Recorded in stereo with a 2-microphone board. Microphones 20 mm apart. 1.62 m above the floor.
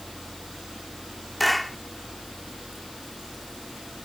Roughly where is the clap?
Centre.